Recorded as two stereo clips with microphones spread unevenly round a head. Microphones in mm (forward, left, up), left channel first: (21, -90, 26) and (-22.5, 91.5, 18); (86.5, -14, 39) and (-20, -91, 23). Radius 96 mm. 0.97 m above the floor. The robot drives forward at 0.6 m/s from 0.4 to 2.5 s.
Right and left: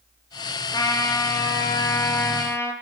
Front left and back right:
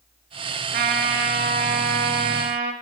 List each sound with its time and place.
0.7 s a trumpet: 145° right, 4 m; by 2.7 s 155° right, 5 m